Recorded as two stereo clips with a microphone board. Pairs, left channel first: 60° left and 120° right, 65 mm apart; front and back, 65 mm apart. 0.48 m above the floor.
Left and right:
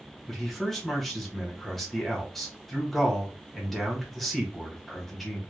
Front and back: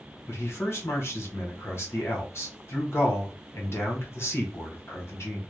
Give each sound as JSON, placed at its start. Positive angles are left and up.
{"t": 0.3, "sound": "a man speaking", "azimuth_deg": -25, "distance_m": 1.0}